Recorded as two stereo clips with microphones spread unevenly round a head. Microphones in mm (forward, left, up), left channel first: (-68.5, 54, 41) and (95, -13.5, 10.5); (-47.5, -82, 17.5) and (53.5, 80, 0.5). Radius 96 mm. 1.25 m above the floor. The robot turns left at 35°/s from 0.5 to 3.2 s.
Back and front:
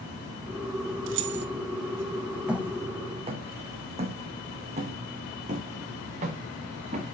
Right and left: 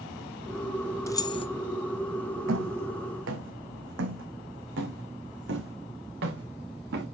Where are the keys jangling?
50° right, 0.7 m; by 1.5 s 60° right, 0.7 m.